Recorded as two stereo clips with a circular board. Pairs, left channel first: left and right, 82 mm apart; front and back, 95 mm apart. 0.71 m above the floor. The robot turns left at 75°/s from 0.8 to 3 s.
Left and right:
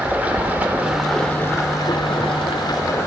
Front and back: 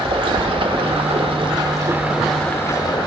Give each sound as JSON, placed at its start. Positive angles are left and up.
{"t": 0.0, "sound": "running water", "azimuth_deg": -160, "distance_m": 1.0}